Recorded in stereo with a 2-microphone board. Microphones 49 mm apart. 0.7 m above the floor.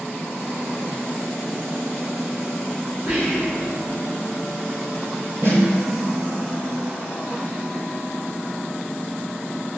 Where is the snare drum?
60° right (ahead or behind), 1.0 m.